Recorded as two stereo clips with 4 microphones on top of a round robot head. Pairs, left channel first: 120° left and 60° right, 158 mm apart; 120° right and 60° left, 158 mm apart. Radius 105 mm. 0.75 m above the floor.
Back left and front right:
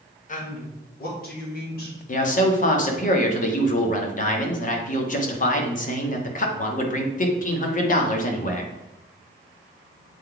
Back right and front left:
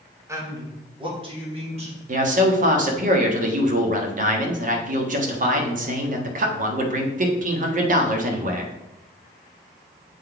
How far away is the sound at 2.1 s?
About 1.4 m.